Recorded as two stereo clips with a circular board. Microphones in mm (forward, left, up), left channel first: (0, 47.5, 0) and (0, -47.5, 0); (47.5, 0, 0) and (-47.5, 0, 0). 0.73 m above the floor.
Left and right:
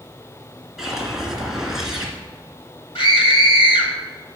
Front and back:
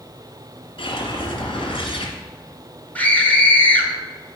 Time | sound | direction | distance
0.8 | a whoosh | 5° right | 1.7 m
3.0 | a scream | 70° left | 1.9 m